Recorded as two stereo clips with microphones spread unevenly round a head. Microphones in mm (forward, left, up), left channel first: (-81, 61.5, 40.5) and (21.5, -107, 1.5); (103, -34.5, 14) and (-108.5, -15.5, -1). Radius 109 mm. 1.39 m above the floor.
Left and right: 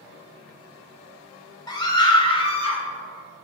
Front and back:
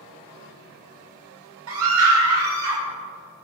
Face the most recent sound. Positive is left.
turn(degrees=180)